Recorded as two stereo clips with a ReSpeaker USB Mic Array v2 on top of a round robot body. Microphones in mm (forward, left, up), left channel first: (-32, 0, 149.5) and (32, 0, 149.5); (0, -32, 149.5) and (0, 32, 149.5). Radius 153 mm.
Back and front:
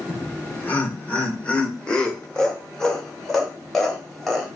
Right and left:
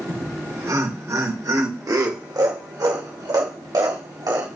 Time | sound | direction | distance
0.1 | laughter | 130° left | 2 m